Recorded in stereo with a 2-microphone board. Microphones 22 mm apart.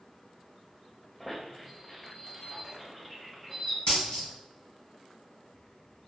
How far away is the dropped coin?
About 1.3 m.